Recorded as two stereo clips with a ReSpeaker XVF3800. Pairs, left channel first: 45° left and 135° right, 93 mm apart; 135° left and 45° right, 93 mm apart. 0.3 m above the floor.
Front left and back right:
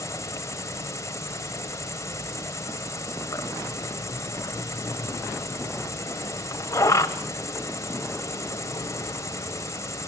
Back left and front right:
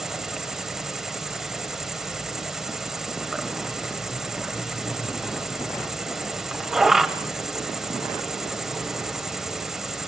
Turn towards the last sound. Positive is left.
turn(degrees=35)